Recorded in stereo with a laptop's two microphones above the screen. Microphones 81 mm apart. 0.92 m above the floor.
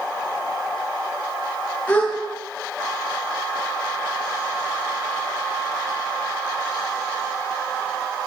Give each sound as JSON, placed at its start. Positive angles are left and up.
{"t": 1.9, "sound": "a gasp", "side_deg": 20, "distance_m": 4.5}